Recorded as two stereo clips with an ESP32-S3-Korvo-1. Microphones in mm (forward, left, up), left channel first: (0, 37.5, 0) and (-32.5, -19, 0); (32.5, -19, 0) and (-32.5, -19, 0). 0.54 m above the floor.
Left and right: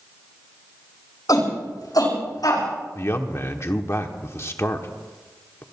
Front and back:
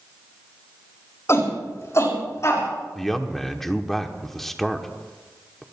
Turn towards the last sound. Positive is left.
turn(degrees=85)